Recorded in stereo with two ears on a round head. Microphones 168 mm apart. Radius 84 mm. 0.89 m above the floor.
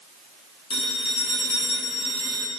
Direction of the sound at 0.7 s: 25° left (ahead or behind).